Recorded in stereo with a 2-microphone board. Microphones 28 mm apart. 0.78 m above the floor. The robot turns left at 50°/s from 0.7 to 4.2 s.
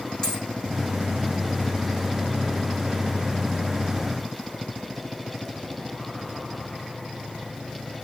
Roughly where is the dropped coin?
Left.